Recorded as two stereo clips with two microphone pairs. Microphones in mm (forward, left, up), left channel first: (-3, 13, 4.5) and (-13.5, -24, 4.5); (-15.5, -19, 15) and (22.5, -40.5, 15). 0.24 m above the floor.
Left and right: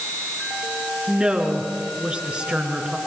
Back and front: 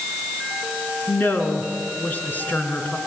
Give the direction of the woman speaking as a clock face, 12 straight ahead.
6 o'clock.